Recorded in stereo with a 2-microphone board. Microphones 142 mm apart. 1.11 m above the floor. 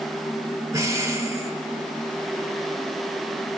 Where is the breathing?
20° right (ahead or behind), 1.0 m.